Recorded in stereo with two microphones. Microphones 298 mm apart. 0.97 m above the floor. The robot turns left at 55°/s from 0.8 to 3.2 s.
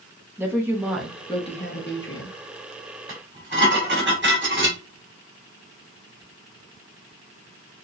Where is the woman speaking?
170° right, 1.1 m; by 2.4 s 105° left, 1.1 m.